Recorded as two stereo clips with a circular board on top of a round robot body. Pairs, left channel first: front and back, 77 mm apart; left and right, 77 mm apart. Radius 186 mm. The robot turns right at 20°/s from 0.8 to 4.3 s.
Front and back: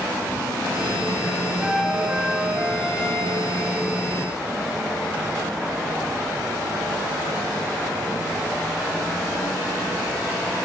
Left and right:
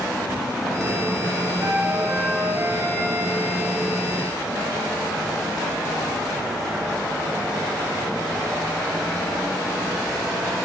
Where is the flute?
110° right, 0.9 m; by 3.4 s 70° right, 0.9 m.